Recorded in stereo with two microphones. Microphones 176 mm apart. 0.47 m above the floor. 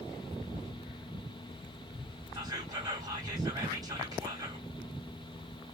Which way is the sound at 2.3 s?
20° right (ahead or behind).